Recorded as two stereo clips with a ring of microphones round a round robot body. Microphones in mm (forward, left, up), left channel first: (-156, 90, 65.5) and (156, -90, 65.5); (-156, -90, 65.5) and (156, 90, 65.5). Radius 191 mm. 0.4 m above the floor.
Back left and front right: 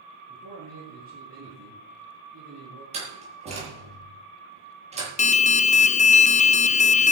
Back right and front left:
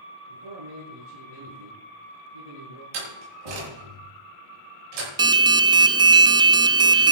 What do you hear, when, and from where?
0.3 s a man speaking: 35° left, 8 m
2.9 s a door slam: 45° left, 9.5 m
5.2 s an alarm: 95° left, 0.5 m